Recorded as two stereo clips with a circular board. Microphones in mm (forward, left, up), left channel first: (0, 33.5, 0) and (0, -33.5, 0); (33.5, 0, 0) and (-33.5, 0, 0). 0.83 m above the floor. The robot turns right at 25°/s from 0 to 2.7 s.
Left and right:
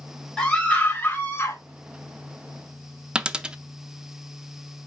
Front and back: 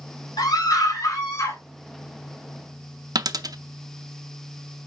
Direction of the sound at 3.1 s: 165° right.